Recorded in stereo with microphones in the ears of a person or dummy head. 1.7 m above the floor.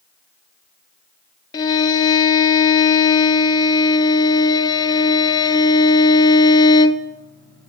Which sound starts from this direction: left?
A violin, at 1.5 s.